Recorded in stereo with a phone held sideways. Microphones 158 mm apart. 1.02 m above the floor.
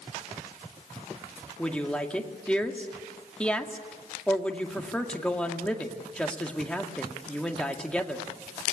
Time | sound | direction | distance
1.6 | a woman speaking | 5° left (ahead or behind) | 1.9 m